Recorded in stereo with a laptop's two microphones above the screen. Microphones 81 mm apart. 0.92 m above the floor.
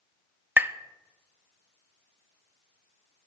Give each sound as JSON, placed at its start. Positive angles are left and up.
{"t": 0.6, "sound": "tapping", "side_deg": -25, "distance_m": 0.6}